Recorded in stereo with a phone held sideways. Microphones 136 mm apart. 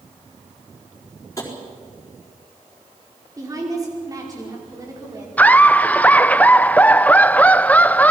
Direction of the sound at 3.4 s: 25° right (ahead or behind).